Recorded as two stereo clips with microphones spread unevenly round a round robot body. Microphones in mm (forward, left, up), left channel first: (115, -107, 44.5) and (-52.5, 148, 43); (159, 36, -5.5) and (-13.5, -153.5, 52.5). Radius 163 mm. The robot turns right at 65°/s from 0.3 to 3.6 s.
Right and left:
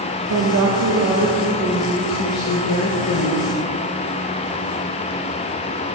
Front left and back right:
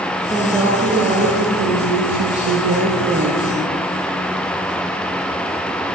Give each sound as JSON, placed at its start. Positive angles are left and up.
{"t": 0.3, "sound": "a woman speaking", "azimuth_deg": 120, "distance_m": 1.1}